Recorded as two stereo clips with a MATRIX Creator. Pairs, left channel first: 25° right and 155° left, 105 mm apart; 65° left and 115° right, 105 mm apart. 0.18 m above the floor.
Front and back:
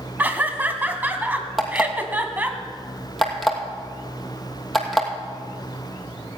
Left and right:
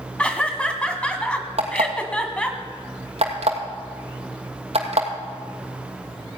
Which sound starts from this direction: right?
An alarm clock, at 1.6 s.